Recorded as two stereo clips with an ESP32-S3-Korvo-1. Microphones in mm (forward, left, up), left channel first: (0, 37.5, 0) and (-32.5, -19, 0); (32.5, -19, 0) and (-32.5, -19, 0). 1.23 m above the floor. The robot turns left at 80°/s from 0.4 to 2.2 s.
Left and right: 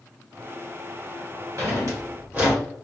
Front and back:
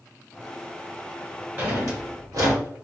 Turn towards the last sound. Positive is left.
turn(degrees=-175)